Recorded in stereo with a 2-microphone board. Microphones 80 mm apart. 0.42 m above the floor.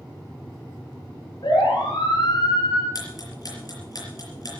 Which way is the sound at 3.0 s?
50° left (ahead or behind).